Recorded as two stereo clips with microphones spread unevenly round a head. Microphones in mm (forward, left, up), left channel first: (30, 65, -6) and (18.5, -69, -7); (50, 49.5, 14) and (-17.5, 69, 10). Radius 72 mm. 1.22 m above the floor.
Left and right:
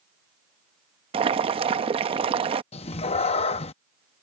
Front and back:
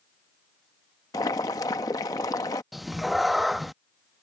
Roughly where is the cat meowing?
Left.